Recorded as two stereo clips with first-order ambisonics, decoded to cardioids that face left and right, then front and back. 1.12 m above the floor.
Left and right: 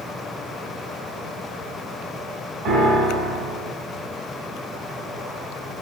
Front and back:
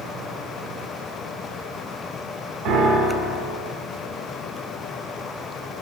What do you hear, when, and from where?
2.6 s a piano: 130° right, 4 m